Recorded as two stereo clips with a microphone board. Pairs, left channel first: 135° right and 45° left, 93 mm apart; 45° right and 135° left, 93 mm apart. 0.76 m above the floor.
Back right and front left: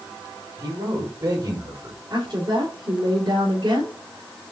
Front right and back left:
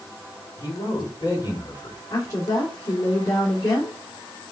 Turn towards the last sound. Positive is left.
turn(degrees=10)